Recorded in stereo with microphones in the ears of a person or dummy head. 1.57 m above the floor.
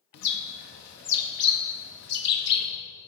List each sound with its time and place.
0.1 s a bird: 60° left (ahead or behind), 0.8 m